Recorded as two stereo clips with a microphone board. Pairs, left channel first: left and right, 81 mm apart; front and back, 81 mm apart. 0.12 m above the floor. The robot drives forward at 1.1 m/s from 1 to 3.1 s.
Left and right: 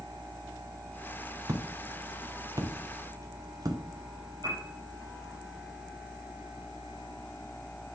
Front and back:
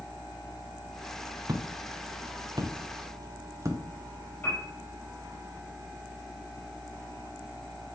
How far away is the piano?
About 5 m.